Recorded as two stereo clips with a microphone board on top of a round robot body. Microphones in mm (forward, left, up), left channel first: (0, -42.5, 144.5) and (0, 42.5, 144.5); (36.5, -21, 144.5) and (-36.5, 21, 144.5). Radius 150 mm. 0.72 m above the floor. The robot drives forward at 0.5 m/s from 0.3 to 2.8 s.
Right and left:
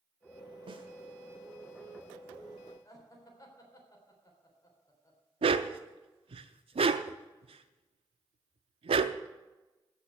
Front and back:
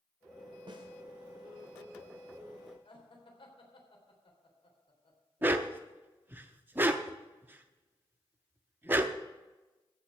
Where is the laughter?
40° right, 4 m.